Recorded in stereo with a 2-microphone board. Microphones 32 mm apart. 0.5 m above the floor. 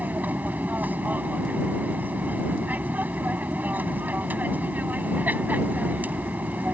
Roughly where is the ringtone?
No ringtone in this recording.